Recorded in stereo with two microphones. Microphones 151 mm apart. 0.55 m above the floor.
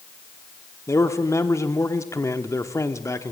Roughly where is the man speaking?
Centre.